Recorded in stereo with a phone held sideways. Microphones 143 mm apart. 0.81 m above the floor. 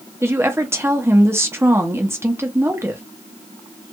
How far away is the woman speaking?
About 0.8 m.